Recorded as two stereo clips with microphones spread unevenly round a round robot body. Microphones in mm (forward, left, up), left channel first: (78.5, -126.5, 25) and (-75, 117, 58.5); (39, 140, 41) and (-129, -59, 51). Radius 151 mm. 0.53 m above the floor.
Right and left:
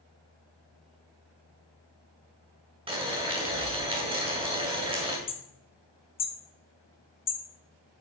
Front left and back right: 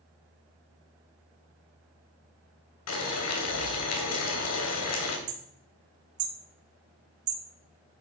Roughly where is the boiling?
Ahead left.